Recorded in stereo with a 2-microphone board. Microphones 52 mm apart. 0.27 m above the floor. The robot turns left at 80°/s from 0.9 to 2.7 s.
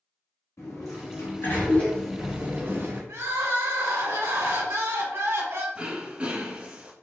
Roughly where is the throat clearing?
Right.